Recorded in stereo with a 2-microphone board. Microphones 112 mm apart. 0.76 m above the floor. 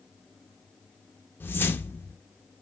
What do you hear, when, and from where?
1.4 s a whoosh: 20° left (ahead or behind), 0.5 m